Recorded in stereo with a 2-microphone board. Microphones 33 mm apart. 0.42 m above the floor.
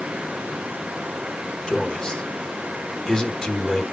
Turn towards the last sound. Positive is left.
turn(degrees=25)  # may be behind; listen again after turning